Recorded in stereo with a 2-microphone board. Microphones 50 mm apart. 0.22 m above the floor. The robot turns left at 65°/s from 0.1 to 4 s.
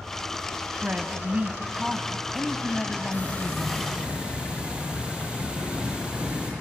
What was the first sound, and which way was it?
A woman speaking, 85° right.